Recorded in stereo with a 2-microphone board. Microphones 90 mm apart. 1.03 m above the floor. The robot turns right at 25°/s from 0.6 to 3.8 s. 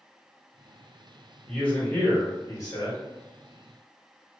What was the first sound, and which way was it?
A man speaking, 10° left.